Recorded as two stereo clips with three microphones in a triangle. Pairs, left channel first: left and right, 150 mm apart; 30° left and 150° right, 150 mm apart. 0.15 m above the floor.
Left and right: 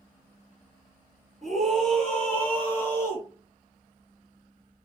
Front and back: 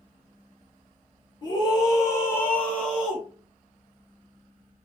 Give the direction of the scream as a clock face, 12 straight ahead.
12 o'clock.